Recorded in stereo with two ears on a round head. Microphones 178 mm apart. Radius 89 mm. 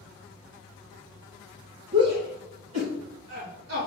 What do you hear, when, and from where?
1.9 s a shout: 60° right (ahead or behind), 1.9 m; by 3.9 s 85° right, 4 m